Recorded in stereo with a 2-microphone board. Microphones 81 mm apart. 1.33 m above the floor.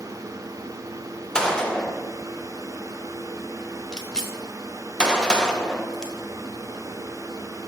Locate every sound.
1.4 s a gunshot: 10° left (ahead or behind), 0.9 m